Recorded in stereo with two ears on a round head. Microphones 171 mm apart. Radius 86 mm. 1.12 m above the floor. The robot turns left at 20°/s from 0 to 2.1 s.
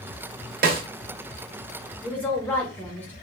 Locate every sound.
0.6 s a snare drum: 55° right (ahead or behind), 0.6 m; by 0.8 s 50° right (ahead or behind), 0.6 m
2.0 s a woman speaking: 10° left (ahead or behind), 0.6 m